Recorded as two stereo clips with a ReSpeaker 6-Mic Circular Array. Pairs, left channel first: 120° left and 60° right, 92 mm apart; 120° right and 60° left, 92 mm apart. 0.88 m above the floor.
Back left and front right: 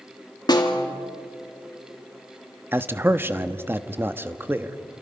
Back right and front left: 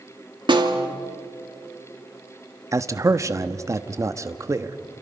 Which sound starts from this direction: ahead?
A man speaking, at 2.7 s.